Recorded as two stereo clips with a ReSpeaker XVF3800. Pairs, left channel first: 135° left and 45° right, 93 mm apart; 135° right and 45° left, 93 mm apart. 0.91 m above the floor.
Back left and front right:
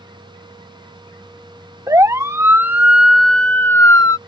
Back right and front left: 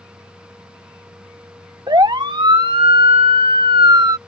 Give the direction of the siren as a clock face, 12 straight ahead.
12 o'clock.